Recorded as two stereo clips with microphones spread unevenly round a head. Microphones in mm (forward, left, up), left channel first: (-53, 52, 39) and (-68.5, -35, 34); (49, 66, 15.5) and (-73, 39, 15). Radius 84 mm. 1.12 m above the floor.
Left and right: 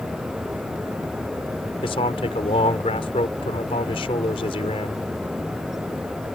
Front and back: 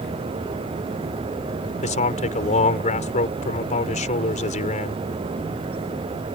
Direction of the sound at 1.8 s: 35° left.